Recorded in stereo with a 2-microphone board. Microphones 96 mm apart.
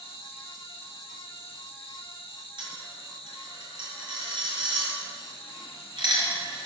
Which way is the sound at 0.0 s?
75° left (ahead or behind).